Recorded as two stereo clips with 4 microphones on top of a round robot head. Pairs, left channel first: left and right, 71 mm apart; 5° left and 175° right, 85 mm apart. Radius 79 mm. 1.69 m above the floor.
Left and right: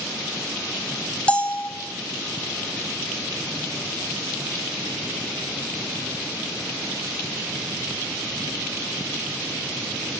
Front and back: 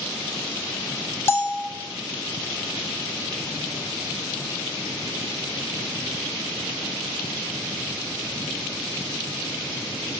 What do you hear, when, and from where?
1.3 s a bell: 30° left, 0.7 m